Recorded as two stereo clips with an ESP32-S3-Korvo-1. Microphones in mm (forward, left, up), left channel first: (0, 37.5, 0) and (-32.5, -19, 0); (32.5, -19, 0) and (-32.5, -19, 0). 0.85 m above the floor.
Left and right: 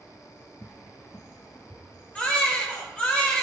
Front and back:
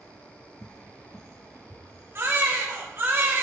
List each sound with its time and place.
0.6 s a cupboard door: 50° left, 0.7 m
2.1 s a baby crying: 130° left, 1.8 m